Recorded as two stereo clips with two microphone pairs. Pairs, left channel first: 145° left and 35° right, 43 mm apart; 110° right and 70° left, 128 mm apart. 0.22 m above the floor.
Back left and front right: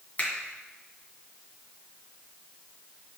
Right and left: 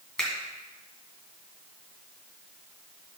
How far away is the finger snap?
About 2 m.